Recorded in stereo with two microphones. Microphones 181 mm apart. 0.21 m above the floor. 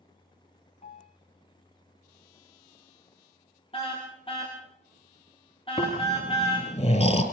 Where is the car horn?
30° left (ahead or behind), 8.5 m.